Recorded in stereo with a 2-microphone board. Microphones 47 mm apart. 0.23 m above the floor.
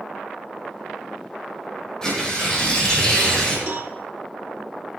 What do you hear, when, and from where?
2.0 s tearing paper: 15° left (ahead or behind), 9 m
3.7 s a cowbell: 55° right (ahead or behind), 2.0 m